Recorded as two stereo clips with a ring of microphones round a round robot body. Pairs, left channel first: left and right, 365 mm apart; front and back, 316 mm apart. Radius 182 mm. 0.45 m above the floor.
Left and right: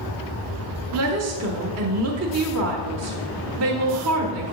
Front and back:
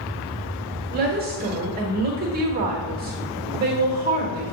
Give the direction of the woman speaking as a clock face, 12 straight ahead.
4 o'clock.